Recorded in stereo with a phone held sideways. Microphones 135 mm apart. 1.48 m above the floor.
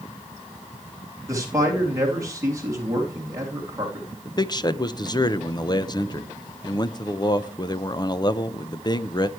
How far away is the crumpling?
No crumpling in this recording.